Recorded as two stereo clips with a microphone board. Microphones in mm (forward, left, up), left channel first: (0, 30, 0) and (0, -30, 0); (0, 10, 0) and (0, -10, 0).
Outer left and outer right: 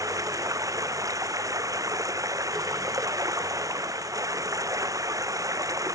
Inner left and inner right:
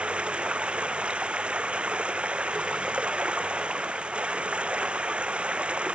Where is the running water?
70° right (ahead or behind).